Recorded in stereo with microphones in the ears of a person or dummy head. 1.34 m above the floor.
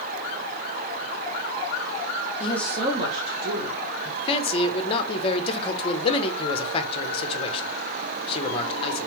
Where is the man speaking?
30° left (ahead or behind), 0.8 m.